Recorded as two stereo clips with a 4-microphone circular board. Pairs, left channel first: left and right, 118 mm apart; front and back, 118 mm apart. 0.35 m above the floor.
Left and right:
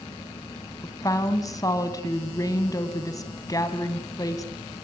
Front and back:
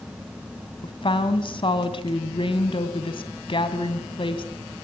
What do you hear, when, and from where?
0.8 s a woman speaking: 35° left, 2 m